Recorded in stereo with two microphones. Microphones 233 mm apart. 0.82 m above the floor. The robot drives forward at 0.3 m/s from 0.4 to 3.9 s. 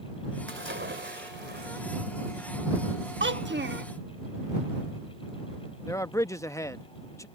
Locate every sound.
0.5 s a splash: 55° right (ahead or behind); by 1.8 s 50° right (ahead or behind)
3.2 s a child speaking: 55° right (ahead or behind); by 3.9 s 45° right (ahead or behind)
5.9 s a man speaking: 15° left (ahead or behind)